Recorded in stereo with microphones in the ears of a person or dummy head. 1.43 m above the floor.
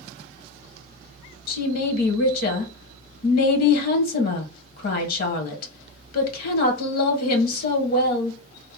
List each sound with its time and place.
1.5 s a woman speaking: 60° left (ahead or behind), 1.1 m